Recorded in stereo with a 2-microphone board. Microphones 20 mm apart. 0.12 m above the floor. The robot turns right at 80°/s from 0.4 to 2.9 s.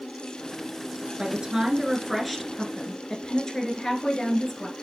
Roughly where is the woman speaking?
Right.